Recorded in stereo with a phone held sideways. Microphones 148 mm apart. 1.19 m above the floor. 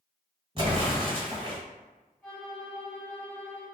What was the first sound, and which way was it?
An explosion, 35° right (ahead or behind).